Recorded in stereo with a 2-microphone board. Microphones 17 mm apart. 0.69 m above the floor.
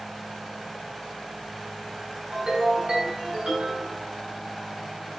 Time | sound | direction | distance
2.3 | a ringtone | 80° right | 3 m